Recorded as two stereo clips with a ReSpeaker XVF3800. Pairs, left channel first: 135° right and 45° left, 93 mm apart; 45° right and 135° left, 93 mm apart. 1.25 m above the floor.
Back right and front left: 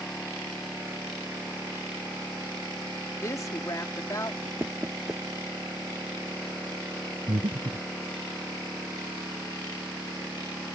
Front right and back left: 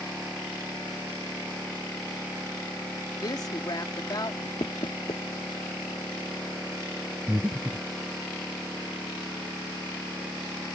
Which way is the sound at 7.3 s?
65° left.